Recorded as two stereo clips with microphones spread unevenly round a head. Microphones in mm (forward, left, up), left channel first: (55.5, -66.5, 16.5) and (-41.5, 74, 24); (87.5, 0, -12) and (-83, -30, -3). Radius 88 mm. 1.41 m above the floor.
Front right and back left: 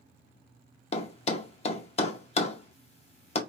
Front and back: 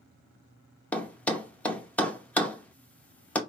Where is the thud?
70° right, 0.7 m.